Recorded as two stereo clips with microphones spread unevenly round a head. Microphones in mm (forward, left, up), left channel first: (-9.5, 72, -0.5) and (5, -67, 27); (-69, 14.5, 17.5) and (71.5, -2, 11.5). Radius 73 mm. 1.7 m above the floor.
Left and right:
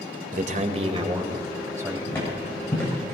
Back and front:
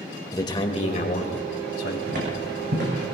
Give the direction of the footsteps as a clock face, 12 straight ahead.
11 o'clock.